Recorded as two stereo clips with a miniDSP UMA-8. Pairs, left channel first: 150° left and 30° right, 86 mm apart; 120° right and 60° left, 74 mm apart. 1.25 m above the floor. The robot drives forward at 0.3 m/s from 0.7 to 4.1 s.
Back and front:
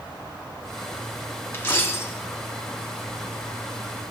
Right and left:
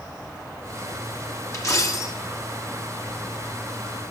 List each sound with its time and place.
1.5 s a dropped coin: 155° right, 1.0 m; by 2.1 s 160° right, 1.1 m